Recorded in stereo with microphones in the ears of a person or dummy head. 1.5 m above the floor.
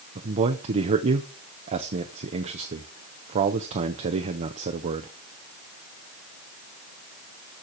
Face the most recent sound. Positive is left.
turn(degrees=-35)  # may be behind; listen again after turning